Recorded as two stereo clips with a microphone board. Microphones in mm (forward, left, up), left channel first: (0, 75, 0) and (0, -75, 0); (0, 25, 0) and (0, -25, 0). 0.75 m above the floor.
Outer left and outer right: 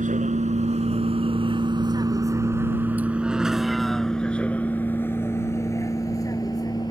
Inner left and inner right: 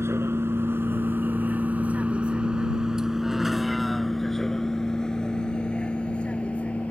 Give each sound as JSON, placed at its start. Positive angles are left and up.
{"t": 0.0, "sound": "a vehicle", "side_deg": -60}